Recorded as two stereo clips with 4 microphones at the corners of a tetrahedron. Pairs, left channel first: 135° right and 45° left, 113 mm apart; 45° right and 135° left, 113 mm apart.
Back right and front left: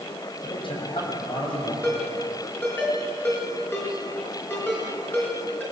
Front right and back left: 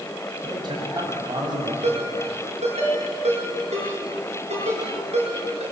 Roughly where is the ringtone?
Behind left.